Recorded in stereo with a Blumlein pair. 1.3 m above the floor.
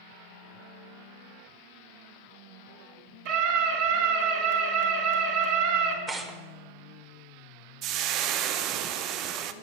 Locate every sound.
3.2 s a scream: 50° right, 3.5 m
6.1 s tearing paper: 15° right, 1.3 m
7.8 s frying: 40° right, 0.6 m